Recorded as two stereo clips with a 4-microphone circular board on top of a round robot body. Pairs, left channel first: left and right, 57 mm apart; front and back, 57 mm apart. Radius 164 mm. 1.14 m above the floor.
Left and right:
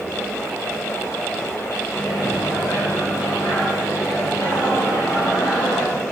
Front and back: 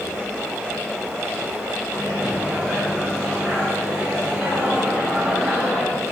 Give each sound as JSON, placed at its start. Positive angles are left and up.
{"t": 1.9, "sound": "a microwave", "azimuth_deg": 105, "distance_m": 2.5}